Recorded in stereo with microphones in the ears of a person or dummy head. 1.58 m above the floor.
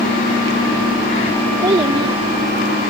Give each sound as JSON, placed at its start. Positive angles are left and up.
{"t": 1.6, "sound": "a child speaking", "side_deg": -25}